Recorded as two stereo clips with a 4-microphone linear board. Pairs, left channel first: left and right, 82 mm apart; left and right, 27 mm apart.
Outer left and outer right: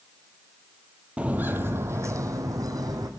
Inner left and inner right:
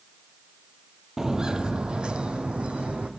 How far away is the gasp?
I don't hear a gasp.